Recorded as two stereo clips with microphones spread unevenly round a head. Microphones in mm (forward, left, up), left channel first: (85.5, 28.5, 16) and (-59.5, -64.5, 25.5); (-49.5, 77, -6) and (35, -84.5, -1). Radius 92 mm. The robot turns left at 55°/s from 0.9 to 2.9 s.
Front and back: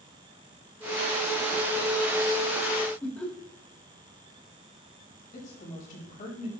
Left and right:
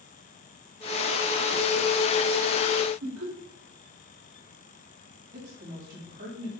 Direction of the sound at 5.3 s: 15° right.